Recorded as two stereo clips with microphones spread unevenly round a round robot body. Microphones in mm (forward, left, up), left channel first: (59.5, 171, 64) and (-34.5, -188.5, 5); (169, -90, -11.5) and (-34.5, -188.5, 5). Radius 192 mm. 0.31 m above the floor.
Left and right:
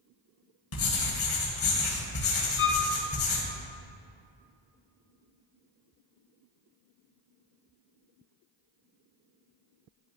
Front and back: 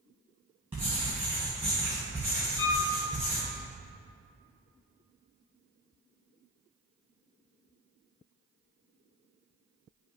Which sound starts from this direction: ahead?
A violin, at 2.6 s.